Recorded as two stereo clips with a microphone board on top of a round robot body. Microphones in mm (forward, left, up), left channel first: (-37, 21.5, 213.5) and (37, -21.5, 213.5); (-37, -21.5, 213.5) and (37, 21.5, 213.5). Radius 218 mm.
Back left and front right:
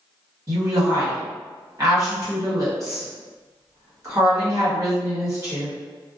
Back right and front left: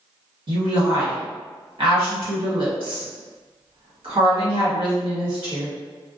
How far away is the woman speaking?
About 1.6 m.